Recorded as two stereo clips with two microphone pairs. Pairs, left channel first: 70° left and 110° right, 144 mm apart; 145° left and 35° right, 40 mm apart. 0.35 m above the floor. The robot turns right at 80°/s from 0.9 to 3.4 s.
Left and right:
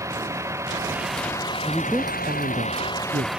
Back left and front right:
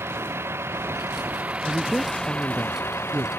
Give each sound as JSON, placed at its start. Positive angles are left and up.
{"t": 0.0, "sound": "a vehicle", "azimuth_deg": -40}
{"t": 1.6, "sound": "a woman speaking", "azimuth_deg": 155}